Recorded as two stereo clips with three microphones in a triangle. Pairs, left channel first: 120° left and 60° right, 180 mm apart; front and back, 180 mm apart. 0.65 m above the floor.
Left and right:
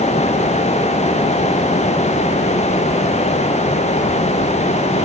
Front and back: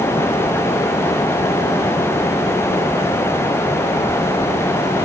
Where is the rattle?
No rattle in this recording.